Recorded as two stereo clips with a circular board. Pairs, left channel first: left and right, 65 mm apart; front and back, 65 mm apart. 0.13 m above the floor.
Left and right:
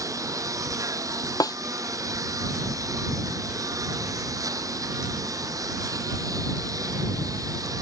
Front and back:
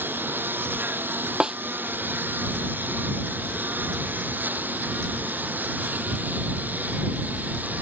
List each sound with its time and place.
0.0 s a lawn mower: 120° right; by 7.8 s 115° right
1.4 s a snare drum: 105° left